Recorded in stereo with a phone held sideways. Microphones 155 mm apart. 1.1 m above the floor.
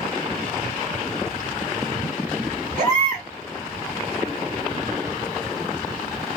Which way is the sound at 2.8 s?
55° right (ahead or behind).